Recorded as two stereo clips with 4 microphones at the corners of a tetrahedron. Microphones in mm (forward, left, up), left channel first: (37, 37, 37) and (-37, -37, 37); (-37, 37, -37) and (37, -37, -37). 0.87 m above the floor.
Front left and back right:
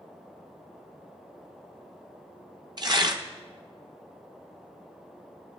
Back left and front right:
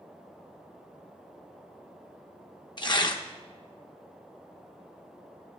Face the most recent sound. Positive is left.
turn(degrees=180)